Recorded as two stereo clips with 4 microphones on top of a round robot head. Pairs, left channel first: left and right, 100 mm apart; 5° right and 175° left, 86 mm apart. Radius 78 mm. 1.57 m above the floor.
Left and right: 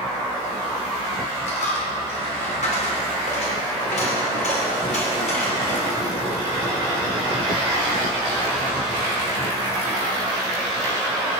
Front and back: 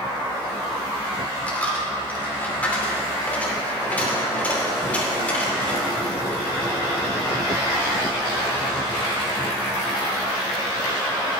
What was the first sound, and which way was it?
A dropped coin, 65° left.